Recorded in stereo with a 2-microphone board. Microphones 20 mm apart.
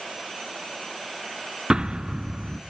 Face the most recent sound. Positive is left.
turn(degrees=-40)  # may be behind; listen again after turning